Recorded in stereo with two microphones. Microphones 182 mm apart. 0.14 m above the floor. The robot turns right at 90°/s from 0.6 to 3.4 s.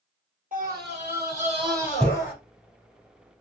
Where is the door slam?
I don't hear a door slam.